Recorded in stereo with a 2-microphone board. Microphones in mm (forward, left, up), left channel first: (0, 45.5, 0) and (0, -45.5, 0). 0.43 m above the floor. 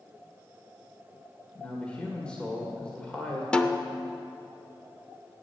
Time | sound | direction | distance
1.6 | a man speaking | 10° left (ahead or behind) | 1.8 m
3.5 | a snare drum | 10° left (ahead or behind) | 0.7 m